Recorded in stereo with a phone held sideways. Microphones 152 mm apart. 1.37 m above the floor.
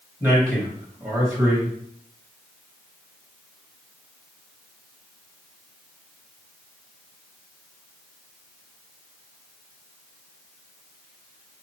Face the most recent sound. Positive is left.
turn(degrees=-20)  # may be behind; listen again after turning